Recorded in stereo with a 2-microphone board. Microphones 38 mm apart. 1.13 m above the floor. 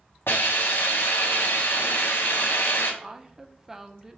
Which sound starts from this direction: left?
A hiss, at 0.3 s.